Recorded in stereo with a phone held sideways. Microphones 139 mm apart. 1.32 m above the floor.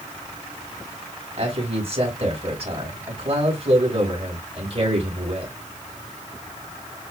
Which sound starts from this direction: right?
A man speaking, at 1.4 s.